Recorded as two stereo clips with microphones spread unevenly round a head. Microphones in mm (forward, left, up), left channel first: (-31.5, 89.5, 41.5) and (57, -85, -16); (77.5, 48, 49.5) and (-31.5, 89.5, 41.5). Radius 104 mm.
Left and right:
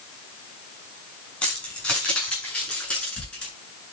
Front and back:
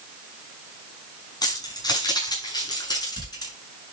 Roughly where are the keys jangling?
Ahead left.